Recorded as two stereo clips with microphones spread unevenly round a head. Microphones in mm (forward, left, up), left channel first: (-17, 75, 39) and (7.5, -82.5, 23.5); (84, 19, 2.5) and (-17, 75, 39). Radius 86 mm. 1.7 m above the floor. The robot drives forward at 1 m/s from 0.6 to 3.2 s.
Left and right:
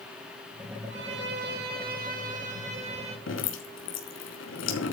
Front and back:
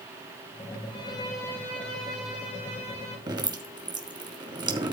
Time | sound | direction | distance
0.9 | a violin | 90° right | 2 m
3.3 | dripping | 100° left | 3 m